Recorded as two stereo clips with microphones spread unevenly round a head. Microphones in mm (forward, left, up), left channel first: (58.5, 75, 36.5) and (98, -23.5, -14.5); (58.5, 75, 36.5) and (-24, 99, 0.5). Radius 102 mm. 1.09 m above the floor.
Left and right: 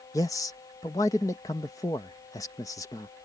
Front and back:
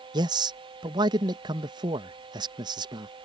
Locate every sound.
0.1 s a man speaking: 170° right